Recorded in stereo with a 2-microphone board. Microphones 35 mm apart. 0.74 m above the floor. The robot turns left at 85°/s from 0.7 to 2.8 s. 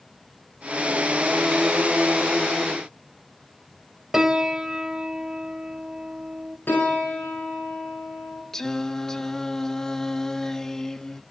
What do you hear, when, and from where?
4.1 s a piano: 15° right (ahead or behind), 1.1 m
6.7 s a piano: 80° left, 7.5 m
8.5 s singing: 15° left (ahead or behind), 0.6 m